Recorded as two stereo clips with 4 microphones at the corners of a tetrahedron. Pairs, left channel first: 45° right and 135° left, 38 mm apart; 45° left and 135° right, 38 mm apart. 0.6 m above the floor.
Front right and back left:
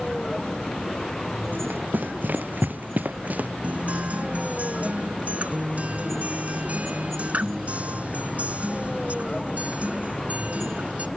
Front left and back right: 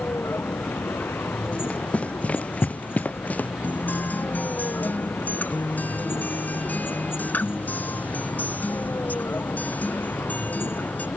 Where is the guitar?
85° left.